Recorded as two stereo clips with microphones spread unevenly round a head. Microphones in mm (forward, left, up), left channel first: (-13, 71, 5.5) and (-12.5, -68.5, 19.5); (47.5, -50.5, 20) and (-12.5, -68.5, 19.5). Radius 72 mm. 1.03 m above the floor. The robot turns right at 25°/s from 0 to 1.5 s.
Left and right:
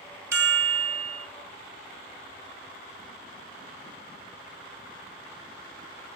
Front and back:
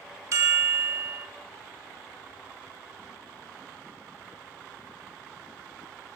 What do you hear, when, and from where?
0.3 s a chime: 155° right, 1.2 m; by 1.3 s 130° right, 1.2 m